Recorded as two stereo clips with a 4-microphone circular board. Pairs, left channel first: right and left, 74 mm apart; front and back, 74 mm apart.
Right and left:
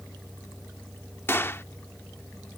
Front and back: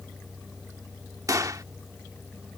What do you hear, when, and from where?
1.3 s a gunshot: 145° right